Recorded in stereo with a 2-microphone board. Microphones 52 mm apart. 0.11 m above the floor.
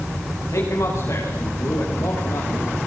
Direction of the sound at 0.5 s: 70° left (ahead or behind).